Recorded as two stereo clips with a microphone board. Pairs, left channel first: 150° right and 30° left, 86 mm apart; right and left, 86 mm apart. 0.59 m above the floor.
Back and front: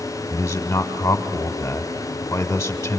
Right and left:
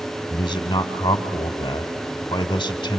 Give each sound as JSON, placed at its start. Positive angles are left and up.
{"t": 0.3, "sound": "a man speaking", "azimuth_deg": -95, "distance_m": 1.9}